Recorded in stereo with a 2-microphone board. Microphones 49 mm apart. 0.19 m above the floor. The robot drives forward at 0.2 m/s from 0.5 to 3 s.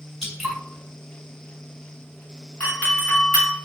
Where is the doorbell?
30° left (ahead or behind), 2.0 m.